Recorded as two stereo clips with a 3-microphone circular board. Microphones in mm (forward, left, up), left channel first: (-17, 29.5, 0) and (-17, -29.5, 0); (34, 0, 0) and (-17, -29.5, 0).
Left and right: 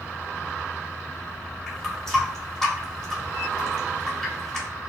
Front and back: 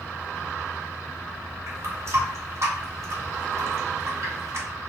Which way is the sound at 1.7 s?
170° left.